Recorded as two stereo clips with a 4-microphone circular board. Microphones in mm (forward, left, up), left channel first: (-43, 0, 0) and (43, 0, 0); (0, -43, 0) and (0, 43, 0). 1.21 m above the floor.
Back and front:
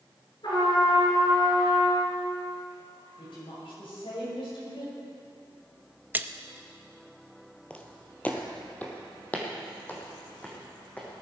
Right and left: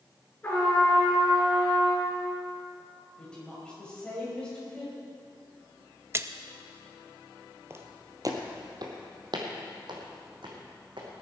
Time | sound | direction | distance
0.4 | a trumpet | 160° right | 5 m
3.2 | a woman speaking | 170° right | 6 m
6.1 | a splash | 50° left | 0.5 m
7.7 | footsteps | 115° left | 1.4 m